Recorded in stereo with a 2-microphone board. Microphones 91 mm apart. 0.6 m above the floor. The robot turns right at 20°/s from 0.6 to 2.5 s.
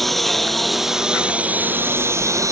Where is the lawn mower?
175° left; by 2.5 s 145° right.